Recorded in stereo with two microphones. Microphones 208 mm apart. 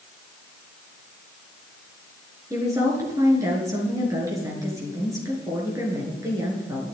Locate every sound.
2.5 s a woman speaking: 15° right (ahead or behind), 6.5 m